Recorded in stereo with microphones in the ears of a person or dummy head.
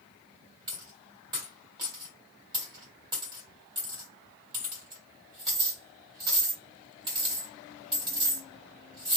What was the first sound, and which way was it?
A dropped coin, 25° right (ahead or behind).